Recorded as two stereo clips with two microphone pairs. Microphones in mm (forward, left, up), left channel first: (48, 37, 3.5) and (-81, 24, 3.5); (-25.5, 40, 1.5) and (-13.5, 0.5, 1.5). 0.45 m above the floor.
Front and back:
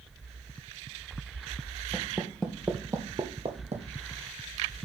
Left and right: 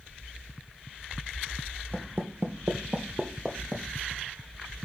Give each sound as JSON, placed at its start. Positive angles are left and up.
{"t": 1.9, "sound": "footsteps", "azimuth_deg": -60, "distance_m": 0.9}